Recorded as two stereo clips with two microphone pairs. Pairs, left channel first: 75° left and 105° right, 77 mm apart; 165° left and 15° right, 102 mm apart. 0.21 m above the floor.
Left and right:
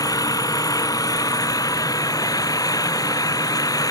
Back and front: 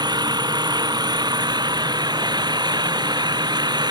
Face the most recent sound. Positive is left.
turn(degrees=35)